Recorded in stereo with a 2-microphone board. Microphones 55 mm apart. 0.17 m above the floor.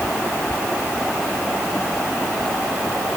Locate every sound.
Only background noise.